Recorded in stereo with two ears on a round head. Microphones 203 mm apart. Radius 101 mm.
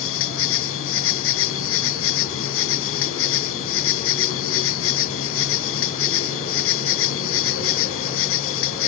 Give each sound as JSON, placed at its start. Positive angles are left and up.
{"t": 0.0, "sound": "an insect", "side_deg": 65}